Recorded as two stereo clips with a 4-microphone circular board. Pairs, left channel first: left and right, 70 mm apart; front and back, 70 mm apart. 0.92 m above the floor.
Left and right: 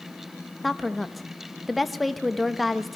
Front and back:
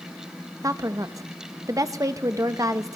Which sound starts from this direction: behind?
A woman speaking, at 0.6 s.